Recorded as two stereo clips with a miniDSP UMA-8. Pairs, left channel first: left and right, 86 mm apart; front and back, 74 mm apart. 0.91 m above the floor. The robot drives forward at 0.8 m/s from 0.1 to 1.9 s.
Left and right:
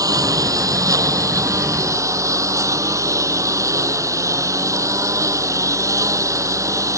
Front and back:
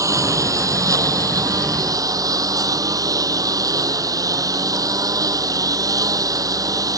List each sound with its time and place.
0.0 s a lawn mower: 135° right; by 7.0 s 140° right